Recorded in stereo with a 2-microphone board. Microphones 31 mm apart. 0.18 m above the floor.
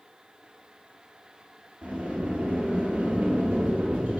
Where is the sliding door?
55° right (ahead or behind), 0.9 m.